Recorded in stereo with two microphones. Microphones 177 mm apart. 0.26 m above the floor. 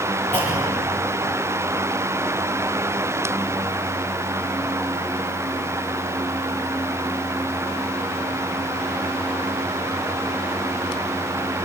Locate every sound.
0.3 s a clunk: 25° right (ahead or behind), 7.5 m